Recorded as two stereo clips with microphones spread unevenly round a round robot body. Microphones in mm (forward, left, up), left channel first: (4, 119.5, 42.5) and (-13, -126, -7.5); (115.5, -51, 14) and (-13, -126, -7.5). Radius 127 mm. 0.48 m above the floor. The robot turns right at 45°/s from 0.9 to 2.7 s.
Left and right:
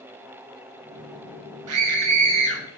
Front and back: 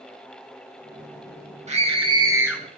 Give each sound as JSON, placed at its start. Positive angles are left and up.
{"t": 1.7, "sound": "a scream", "azimuth_deg": -110, "distance_m": 5.0}